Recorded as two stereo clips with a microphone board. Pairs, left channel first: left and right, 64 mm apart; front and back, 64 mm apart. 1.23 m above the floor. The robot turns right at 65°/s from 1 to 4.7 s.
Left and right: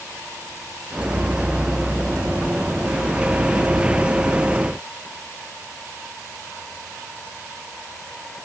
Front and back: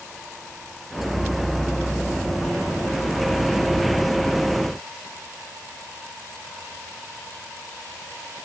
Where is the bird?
I don't hear a bird.